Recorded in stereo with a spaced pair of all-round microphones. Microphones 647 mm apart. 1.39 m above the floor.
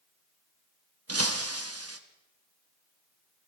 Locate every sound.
1.1 s breaking glass: 25° right (ahead or behind), 1.0 m